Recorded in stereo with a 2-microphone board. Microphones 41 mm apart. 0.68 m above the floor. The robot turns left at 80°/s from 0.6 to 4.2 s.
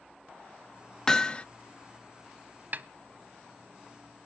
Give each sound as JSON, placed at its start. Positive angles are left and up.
{"t": 1.1, "sound": "hammering", "azimuth_deg": 155, "distance_m": 0.5}
{"t": 2.7, "sound": "a snare drum", "side_deg": -45, "distance_m": 0.7}